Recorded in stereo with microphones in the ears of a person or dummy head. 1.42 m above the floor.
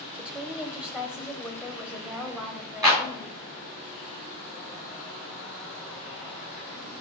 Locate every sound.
0.2 s a woman speaking: 10° right (ahead or behind), 1.2 m
2.8 s a clap: 20° right (ahead or behind), 3.5 m